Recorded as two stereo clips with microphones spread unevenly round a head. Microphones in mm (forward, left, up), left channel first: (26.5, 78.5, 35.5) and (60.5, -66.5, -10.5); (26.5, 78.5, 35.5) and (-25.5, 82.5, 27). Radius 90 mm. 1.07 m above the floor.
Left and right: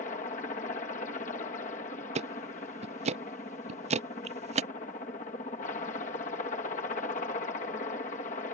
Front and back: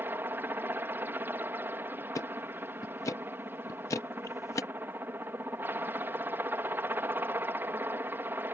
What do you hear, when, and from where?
0.0 s a helicopter: 155° left
2.1 s ticking: 25° right